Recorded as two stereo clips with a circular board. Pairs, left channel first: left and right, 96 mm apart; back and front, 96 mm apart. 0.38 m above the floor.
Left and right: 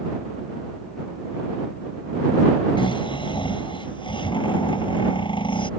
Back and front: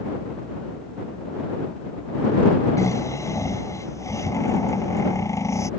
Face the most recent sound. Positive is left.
turn(degrees=120)